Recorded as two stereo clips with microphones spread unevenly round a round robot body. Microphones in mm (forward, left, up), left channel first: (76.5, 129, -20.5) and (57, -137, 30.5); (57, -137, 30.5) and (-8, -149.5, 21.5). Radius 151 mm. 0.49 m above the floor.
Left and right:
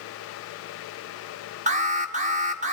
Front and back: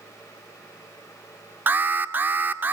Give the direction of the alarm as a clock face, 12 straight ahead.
5 o'clock.